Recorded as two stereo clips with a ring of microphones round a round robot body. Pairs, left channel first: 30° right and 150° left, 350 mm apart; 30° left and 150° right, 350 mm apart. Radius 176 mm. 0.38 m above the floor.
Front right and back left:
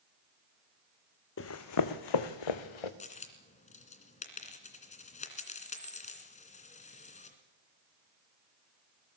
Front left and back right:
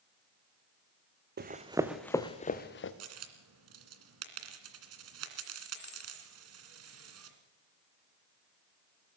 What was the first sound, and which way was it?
Running footsteps, 85° right.